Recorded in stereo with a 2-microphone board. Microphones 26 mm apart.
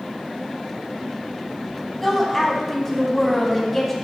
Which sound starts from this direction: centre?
A woman speaking, at 2.0 s.